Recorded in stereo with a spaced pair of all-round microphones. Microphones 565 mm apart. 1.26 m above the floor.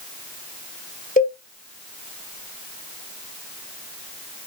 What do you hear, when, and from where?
1.2 s a cowbell: 15° left (ahead or behind), 2 m